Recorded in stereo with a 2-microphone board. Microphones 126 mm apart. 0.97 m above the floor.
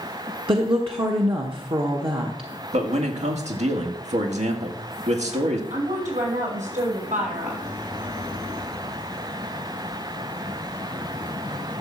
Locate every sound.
0.5 s a woman speaking: 45° right (ahead or behind), 1.1 m
2.7 s a man speaking: 65° right (ahead or behind), 1.8 m
5.7 s a woman speaking: 85° right, 5.5 m